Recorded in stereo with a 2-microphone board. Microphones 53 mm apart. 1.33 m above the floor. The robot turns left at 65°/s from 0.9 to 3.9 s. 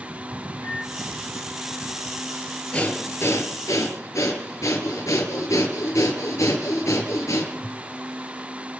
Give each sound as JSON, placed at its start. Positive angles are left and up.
{"t": 0.6, "sound": "a microwave", "side_deg": 40, "distance_m": 3.5}
{"t": 2.7, "sound": "breathing", "azimuth_deg": 160, "distance_m": 4.5}